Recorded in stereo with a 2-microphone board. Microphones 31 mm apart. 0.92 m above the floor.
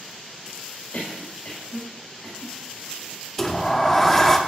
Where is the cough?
70° left (ahead or behind), 1.7 m.